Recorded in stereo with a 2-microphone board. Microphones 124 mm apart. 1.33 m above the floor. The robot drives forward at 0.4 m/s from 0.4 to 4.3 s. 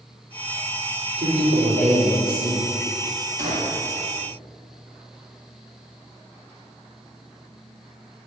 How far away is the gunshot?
About 1.7 m.